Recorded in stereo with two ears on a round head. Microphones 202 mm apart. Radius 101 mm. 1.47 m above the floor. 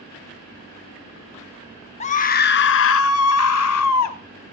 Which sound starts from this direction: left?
A scream, at 2.0 s.